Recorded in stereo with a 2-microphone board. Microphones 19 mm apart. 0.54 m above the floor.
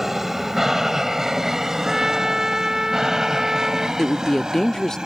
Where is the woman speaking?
20° left (ahead or behind).